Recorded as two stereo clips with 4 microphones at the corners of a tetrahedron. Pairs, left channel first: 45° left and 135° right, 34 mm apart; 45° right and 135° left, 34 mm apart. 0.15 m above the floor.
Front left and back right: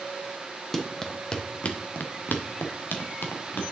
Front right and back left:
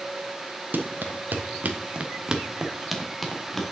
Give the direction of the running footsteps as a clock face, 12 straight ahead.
8 o'clock.